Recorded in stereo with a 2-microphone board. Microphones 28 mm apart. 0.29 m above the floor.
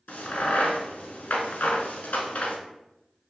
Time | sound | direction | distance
0.1 | a crack | 85° left | 0.5 m